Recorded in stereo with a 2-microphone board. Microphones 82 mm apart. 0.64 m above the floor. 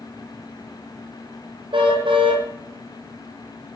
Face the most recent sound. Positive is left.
turn(degrees=-90)